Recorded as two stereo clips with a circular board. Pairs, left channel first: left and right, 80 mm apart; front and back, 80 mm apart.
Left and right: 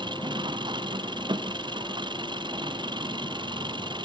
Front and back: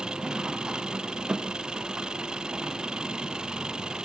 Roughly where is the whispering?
I don't hear whispering.